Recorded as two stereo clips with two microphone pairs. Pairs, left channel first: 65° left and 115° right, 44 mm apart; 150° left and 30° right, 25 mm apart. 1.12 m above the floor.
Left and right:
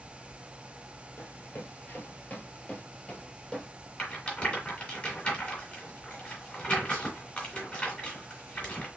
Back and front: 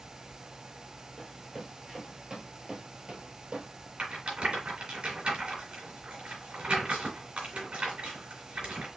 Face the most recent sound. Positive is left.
turn(degrees=10)